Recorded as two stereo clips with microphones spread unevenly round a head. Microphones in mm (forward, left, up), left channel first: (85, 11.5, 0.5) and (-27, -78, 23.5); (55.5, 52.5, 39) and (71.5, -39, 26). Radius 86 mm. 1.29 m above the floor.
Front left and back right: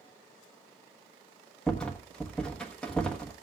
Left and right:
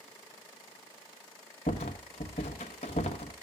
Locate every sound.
1.7 s a rattle: 125° left, 1.1 m